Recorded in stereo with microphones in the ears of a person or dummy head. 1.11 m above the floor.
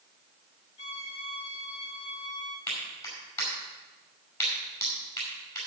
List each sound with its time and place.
0.8 s a violin: 25° left (ahead or behind), 1.0 m
2.7 s a clap: 15° left (ahead or behind), 5 m